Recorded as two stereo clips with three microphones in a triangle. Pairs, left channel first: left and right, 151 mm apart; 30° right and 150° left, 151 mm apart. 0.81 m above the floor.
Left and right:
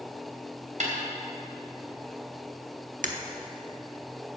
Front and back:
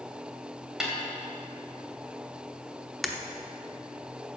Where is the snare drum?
125° right, 2.5 m.